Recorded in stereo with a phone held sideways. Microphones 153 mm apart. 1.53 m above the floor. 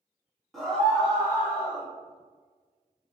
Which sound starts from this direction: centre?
A scream, at 0.5 s.